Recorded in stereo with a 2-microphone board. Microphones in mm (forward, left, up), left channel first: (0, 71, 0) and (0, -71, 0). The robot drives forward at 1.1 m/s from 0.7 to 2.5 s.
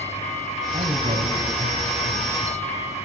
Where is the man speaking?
65° right (ahead or behind), 3.5 m.